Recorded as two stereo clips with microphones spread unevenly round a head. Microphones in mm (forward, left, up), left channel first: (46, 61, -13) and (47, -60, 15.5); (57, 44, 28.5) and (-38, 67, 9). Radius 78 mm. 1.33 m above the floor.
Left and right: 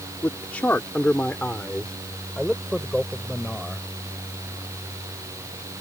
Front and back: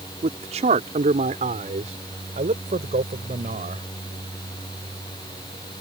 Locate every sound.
0.2 s a man speaking: 175° left; by 3.9 s straight behind